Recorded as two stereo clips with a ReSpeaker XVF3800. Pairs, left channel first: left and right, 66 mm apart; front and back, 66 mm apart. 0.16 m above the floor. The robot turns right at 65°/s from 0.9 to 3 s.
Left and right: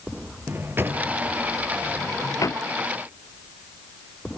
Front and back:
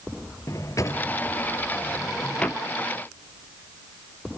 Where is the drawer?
35° right, 2 m; by 2.6 s 75° left, 2 m.